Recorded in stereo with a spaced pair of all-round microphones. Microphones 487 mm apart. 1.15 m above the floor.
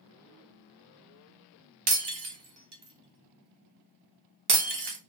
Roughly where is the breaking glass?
Right.